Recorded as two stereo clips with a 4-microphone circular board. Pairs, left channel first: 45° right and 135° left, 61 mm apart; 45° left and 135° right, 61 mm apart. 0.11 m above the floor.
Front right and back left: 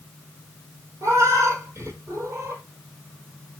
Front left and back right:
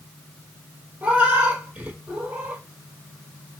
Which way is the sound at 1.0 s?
165° left.